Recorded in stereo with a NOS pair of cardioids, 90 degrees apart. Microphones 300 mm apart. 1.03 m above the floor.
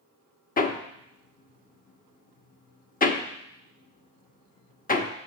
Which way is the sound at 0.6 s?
30° left.